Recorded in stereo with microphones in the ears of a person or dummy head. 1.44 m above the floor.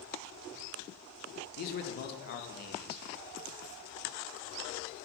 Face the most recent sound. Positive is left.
turn(degrees=45)  # may be behind; listen again after turning